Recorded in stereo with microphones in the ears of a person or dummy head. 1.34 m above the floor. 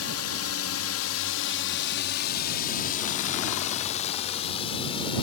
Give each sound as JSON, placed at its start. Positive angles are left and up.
{"t": 0.0, "sound": "a drone", "side_deg": 65}